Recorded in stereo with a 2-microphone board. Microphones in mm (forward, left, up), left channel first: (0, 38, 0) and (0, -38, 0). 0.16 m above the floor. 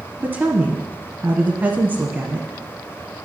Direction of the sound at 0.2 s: 25° right (ahead or behind).